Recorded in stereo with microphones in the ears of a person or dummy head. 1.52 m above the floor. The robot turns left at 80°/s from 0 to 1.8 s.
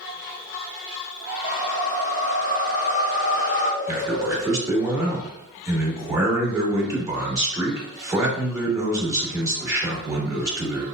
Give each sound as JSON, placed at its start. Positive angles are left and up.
{"t": 1.4, "sound": "a whoosh", "side_deg": 20, "distance_m": 0.7}
{"t": 3.9, "sound": "a man speaking", "side_deg": -15, "distance_m": 1.4}